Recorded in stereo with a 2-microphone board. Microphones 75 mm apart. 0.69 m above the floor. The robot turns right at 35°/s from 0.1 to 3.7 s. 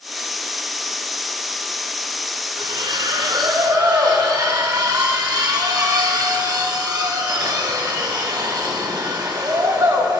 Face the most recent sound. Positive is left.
turn(degrees=-60)